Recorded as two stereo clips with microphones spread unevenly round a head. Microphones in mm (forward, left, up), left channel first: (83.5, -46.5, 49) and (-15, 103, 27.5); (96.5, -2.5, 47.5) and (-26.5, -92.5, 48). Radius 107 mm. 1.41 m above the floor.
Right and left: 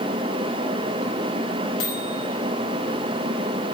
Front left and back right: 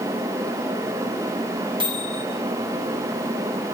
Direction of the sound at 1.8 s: 85° right.